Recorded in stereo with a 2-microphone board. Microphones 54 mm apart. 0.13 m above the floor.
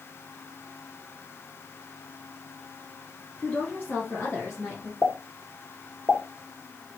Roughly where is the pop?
Left.